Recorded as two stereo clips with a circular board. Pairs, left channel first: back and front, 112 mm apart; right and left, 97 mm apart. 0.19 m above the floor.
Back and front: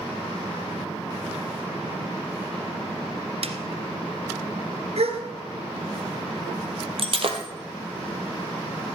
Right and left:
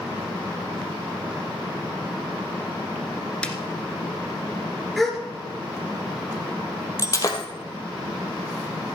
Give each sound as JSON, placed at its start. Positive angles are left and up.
{"t": 3.4, "sound": "a snare drum", "azimuth_deg": -10, "distance_m": 1.5}
{"t": 5.0, "sound": "a gasp", "azimuth_deg": 0, "distance_m": 2.5}
{"t": 7.0, "sound": "breaking glass", "azimuth_deg": -35, "distance_m": 2.0}